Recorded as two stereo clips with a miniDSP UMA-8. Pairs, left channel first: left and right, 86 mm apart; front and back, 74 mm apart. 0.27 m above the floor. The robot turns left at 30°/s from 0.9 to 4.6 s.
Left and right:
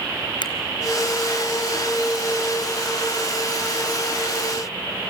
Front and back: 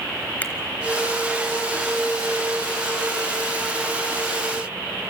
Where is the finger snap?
70° left, 3 m.